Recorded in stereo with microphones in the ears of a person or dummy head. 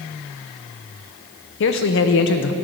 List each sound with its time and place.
1.6 s a man speaking: 60° left (ahead or behind), 0.7 m